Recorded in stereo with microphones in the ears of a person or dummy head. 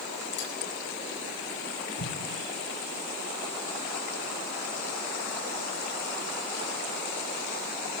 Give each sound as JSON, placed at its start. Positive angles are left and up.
{"t": 0.4, "sound": "cutlery clinking", "side_deg": 60, "distance_m": 9.5}
{"t": 2.0, "sound": "an explosion", "side_deg": 70, "distance_m": 6.5}